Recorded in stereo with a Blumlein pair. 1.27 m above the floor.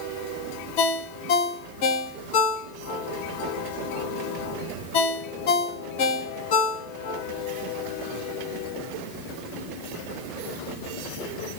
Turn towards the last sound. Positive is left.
turn(degrees=45)